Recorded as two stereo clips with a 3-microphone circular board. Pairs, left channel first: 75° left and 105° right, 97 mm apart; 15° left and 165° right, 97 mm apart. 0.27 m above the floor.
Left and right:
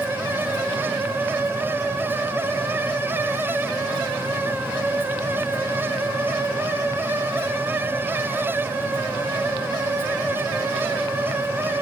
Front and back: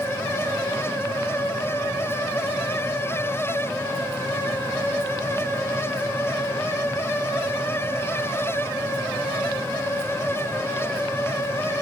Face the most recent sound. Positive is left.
No sound to turn to.